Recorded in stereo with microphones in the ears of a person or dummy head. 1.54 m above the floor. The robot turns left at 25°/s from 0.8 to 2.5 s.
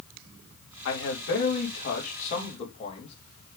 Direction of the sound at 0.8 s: 75° left.